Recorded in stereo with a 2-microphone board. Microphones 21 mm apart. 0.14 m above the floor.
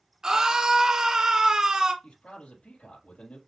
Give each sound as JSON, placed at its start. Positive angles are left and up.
{"t": 0.2, "sound": "a scream", "side_deg": -35, "distance_m": 1.9}
{"t": 2.0, "sound": "a man speaking", "side_deg": 70, "distance_m": 4.5}